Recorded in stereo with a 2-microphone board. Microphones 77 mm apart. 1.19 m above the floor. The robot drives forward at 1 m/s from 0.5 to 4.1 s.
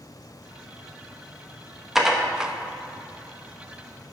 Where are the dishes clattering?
5° right (ahead or behind), 1.1 m; by 2.5 s 10° right (ahead or behind), 0.5 m.